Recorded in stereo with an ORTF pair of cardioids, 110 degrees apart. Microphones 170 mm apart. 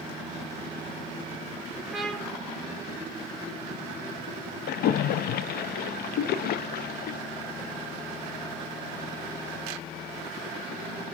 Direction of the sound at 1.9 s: Straight ahead.